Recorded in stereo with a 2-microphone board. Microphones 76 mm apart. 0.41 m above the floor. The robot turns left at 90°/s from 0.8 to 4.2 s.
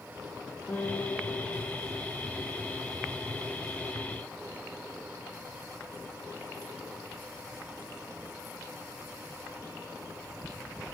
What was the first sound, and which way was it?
A guitar, 145° left.